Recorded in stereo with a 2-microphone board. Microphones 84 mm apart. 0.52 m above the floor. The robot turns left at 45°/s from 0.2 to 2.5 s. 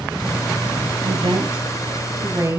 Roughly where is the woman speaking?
Right.